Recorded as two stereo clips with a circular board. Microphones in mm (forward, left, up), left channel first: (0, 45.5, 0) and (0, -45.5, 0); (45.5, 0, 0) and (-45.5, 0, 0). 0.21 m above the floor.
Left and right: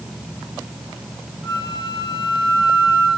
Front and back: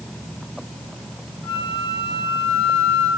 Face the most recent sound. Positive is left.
turn(degrees=125)